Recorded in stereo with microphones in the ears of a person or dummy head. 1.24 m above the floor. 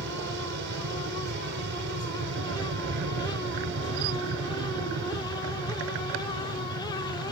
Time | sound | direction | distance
0.0 | an aircraft | 55° right (ahead or behind) | ?